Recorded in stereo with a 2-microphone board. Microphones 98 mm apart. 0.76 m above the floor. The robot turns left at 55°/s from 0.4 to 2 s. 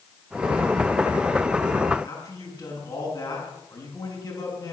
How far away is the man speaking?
About 6.5 m.